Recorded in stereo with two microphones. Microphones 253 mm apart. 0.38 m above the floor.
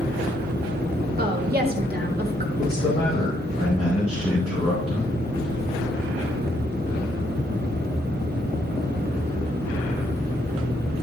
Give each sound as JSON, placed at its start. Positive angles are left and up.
{"t": 1.2, "sound": "a woman speaking", "side_deg": -40, "distance_m": 1.1}
{"t": 2.6, "sound": "a man speaking", "side_deg": 20, "distance_m": 2.5}